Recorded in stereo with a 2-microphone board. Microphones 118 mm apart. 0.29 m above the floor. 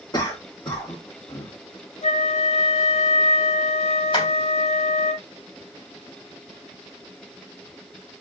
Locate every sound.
0.1 s a cough: 40° left (ahead or behind), 3 m
2.0 s a flute: 60° left (ahead or behind), 1.7 m
4.1 s tapping: 45° left (ahead or behind), 3 m